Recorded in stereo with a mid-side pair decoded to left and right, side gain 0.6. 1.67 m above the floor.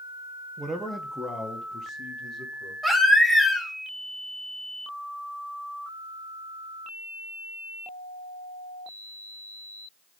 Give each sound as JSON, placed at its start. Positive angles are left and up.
{"t": 0.6, "sound": "a man speaking", "azimuth_deg": -25, "distance_m": 1.1}
{"t": 2.8, "sound": "a baby crying", "azimuth_deg": 0, "distance_m": 3.0}